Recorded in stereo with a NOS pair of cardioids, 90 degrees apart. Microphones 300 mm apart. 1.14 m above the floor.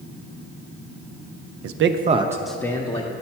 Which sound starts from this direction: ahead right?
A man speaking, at 1.6 s.